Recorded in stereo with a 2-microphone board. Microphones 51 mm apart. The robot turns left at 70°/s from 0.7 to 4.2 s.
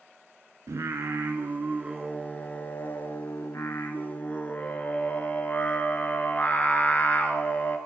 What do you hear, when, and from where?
0.7 s singing: 80° right, 0.5 m; by 7.8 s 35° left, 0.5 m